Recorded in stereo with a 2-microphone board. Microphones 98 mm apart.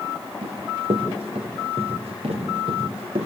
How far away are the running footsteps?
About 3 m.